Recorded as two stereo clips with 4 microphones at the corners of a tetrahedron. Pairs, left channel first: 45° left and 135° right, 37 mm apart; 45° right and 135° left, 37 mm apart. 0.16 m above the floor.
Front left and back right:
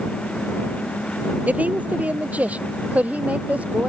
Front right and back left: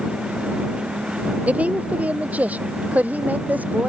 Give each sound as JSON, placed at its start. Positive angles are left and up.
{"t": 1.5, "sound": "a woman speaking", "azimuth_deg": 180}